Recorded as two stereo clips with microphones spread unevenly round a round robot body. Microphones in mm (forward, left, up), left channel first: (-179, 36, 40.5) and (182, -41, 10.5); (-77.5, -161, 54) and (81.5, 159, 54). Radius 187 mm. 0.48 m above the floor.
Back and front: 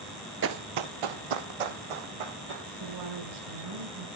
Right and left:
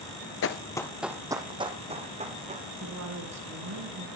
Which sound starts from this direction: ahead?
A woman speaking, at 2.8 s.